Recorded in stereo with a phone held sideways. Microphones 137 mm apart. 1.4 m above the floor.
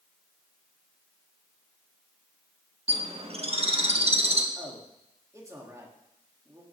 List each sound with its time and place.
2.9 s a bird: 50° right (ahead or behind), 1.3 m
4.5 s a man speaking: 25° right (ahead or behind), 3 m